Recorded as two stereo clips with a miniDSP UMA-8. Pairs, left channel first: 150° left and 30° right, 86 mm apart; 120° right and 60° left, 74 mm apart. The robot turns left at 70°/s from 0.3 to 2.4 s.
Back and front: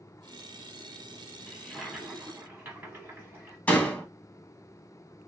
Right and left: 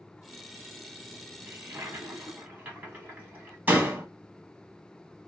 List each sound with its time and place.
1.5 s a toilet flushing: 80° left, 1.2 m; by 3.6 s 15° left, 1.2 m
3.7 s a door slam: 95° left, 0.7 m